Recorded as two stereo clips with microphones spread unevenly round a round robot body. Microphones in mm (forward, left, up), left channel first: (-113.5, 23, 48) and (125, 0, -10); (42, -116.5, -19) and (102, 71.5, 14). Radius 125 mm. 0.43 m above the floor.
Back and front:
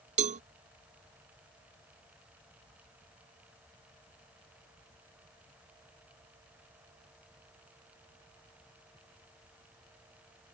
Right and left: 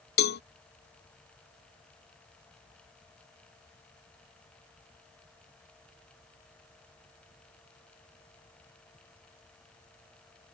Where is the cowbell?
70° right.